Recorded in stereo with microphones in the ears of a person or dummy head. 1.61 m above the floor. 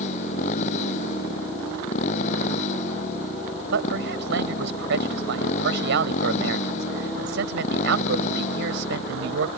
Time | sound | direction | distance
0.0 | a motorcycle | 60° left (ahead or behind) | ?
3.7 | a man speaking | 80° right | ?